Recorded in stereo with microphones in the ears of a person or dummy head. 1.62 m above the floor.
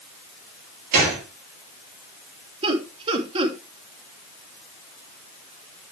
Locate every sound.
0.9 s a gunshot: 50° right (ahead or behind), 7.5 m
2.6 s laughter: 30° right (ahead or behind), 3 m